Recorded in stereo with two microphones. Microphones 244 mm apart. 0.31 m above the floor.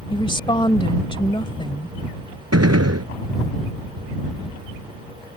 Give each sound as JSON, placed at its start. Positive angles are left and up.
{"t": 0.1, "sound": "a woman speaking", "side_deg": 20}
{"t": 2.5, "sound": "a gunshot", "side_deg": -75}